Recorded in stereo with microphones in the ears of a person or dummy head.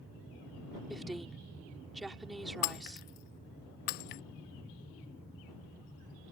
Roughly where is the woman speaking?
Centre.